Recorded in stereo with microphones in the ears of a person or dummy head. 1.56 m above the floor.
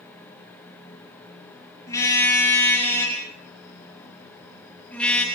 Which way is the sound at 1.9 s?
20° left (ahead or behind).